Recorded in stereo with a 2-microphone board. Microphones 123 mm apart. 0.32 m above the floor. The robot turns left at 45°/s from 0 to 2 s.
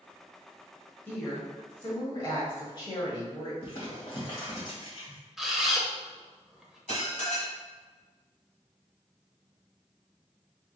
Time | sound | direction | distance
1.1 | a woman speaking | 155° left | 1.3 m
3.6 | crumpling | 50° left (ahead or behind) | 1.7 m
5.4 | a camera shutter | centre (ahead or behind) | 0.6 m
6.9 | dishes clattering | 70° left (ahead or behind) | 1.5 m